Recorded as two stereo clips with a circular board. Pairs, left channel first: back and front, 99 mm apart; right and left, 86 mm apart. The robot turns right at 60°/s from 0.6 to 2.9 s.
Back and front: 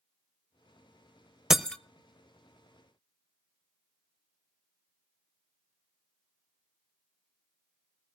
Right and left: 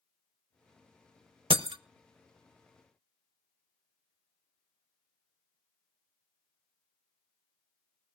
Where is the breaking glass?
85° left, 0.5 m; by 1.8 s 100° left, 0.5 m.